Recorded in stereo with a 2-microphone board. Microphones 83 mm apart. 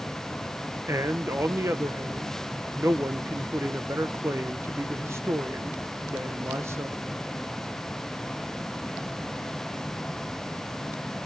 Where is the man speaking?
35° right (ahead or behind), 1.0 m.